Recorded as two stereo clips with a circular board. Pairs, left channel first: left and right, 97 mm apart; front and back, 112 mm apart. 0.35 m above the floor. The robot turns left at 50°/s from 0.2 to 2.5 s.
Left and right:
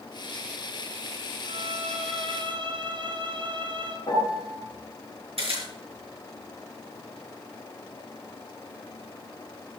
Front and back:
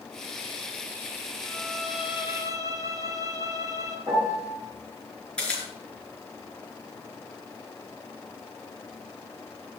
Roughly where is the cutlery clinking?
I don't hear cutlery clinking.